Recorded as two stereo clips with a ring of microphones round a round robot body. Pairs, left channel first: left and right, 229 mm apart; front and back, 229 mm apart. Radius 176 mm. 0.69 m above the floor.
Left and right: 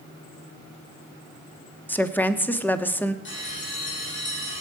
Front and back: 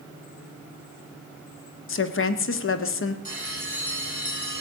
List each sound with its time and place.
1.9 s a woman speaking: 10° left, 1.5 m
3.2 s a bell: 55° left, 9.5 m